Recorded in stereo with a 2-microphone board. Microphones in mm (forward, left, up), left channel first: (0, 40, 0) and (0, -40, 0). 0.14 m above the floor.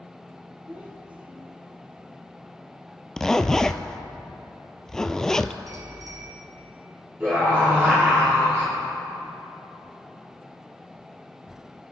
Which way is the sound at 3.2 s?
5° left (ahead or behind).